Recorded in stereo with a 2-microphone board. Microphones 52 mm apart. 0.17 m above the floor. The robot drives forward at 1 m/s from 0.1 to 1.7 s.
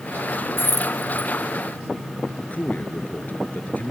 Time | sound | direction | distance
0.6 | keys jangling | 45° left (ahead or behind) | ?
2.4 | a man speaking | 30° left (ahead or behind) | ?